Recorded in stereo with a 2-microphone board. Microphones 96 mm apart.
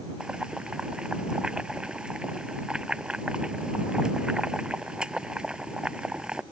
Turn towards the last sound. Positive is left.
turn(degrees=-10)  # may be behind; listen again after turning